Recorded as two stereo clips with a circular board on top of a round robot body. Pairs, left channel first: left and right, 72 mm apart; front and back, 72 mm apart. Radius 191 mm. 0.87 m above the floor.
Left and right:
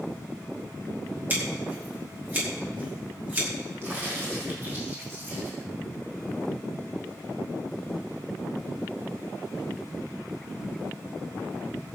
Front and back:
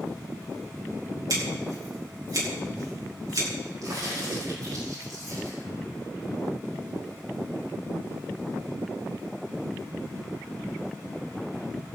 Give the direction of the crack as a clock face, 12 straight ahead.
5 o'clock.